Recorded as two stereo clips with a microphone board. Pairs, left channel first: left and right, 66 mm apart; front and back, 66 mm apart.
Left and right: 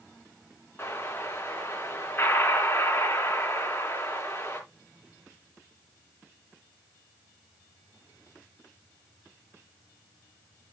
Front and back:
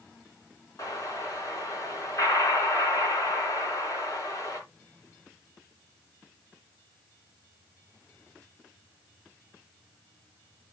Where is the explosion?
30° left, 3.5 m.